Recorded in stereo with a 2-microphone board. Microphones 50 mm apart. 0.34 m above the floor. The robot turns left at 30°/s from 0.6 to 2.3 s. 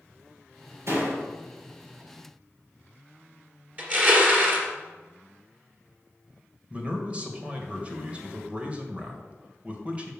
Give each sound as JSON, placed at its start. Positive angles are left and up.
{"t": 0.9, "sound": "a door slam", "side_deg": -60, "distance_m": 4.0}
{"t": 3.8, "sound": "crushing", "side_deg": -35, "distance_m": 2.5}
{"t": 6.7, "sound": "a man speaking", "side_deg": -25, "distance_m": 1.6}